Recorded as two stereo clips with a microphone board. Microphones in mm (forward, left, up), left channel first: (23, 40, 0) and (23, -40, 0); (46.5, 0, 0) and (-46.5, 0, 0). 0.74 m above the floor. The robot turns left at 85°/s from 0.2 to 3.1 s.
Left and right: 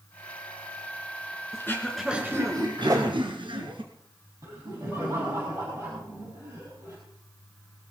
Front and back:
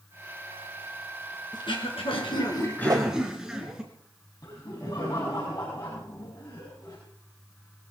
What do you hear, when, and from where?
1.5 s throat clearing: 40° left, 3 m; by 3.8 s 95° right, 3 m
2.8 s a whoosh: 125° right, 1.0 m; by 3.1 s 145° right, 1.0 m
4.4 s laughter: 45° right, 5.5 m